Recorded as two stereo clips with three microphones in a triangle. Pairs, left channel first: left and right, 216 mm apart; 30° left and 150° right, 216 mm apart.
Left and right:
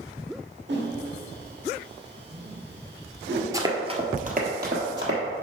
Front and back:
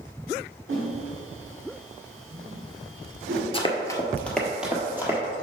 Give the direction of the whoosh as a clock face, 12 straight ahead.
4 o'clock.